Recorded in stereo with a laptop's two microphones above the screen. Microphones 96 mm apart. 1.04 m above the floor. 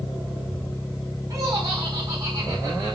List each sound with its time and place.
1.3 s laughter: 35° right (ahead or behind), 7 m